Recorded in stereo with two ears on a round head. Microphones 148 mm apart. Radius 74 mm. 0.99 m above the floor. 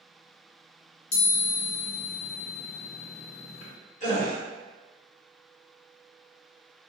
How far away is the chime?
About 1.5 m.